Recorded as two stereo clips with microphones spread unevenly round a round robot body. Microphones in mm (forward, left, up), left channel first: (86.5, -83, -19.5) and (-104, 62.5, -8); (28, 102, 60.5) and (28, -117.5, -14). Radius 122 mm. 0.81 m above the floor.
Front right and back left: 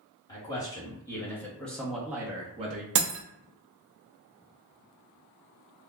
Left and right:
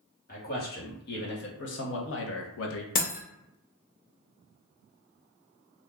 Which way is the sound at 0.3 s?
35° left.